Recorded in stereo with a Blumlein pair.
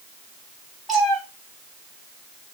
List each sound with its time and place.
0.9 s a cat meowing: 5° right, 2.5 m